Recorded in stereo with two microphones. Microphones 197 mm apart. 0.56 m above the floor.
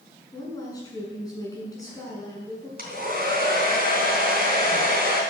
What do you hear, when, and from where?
0.3 s a woman speaking: 20° left (ahead or behind), 6 m
2.8 s a hair dryer: 50° right (ahead or behind), 3.5 m